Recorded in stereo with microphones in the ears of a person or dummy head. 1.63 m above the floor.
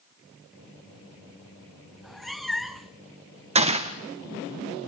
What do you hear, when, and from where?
2.0 s a cat meowing: centre (ahead or behind), 0.8 m
3.5 s a gunshot: 30° right (ahead or behind), 1.5 m